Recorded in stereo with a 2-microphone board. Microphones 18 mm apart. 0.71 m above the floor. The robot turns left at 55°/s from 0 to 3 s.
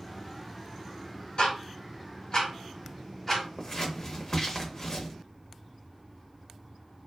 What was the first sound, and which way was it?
Ticking, 80° left.